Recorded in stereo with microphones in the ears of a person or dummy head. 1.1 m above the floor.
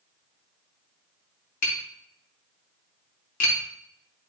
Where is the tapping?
75° left (ahead or behind), 3 m.